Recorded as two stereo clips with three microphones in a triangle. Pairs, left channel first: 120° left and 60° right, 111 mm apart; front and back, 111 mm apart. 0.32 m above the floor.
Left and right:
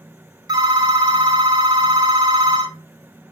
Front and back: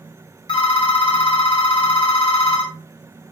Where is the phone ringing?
20° right, 0.8 m.